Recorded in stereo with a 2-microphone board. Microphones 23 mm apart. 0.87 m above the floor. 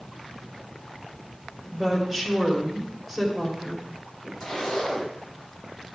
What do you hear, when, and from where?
1.7 s a woman speaking: centre (ahead or behind), 2.5 m
4.4 s a zipper: 30° left (ahead or behind), 4 m